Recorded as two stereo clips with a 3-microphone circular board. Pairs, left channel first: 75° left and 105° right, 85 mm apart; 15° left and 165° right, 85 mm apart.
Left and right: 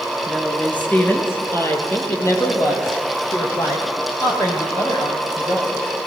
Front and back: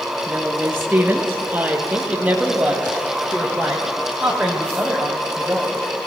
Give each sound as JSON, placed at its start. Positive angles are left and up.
{"t": 0.3, "sound": "a woman speaking", "azimuth_deg": 150, "distance_m": 1.4}